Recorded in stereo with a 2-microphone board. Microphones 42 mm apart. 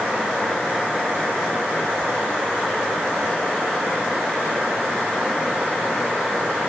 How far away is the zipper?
I don't hear a zipper.